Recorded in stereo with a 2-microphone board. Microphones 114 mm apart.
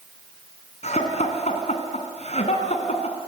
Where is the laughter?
70° left (ahead or behind), 3.5 m.